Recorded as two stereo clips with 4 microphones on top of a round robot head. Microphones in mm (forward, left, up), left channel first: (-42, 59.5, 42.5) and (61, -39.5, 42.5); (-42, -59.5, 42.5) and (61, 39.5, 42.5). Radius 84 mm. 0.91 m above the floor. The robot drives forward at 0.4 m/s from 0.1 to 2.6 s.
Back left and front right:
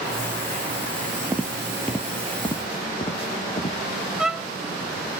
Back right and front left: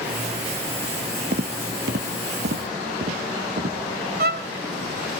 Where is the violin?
45° left, 0.9 m.